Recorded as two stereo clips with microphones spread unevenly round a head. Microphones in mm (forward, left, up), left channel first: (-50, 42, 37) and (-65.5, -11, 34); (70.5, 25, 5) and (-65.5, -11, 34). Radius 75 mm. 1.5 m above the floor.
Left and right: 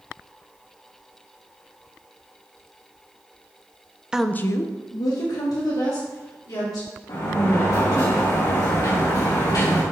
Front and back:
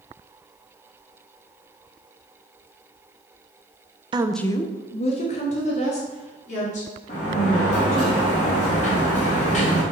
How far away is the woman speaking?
About 0.5 m.